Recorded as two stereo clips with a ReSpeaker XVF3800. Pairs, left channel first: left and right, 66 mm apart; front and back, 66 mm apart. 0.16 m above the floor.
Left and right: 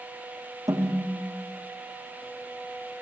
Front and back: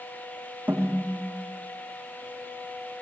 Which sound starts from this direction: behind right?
A snare drum, at 0.7 s.